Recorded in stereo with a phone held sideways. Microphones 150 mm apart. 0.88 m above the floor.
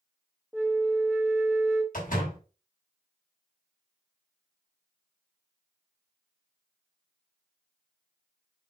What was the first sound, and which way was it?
A flute, 5° left (ahead or behind).